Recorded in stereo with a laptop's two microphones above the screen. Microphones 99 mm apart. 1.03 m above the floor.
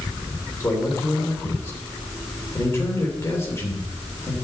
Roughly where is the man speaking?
Left.